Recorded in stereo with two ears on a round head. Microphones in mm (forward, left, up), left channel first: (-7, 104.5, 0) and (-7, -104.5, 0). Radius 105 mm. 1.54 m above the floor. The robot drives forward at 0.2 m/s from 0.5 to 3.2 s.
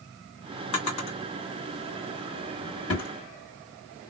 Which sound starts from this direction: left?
A drawer, at 0.7 s.